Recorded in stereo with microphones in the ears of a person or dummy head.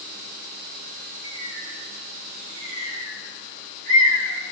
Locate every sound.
1.2 s a bird: 75° right (ahead or behind), 10 m